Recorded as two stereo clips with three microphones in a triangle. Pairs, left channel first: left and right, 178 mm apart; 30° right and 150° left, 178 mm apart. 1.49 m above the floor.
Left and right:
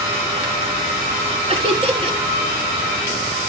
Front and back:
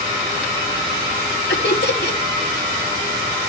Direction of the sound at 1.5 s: 30° right.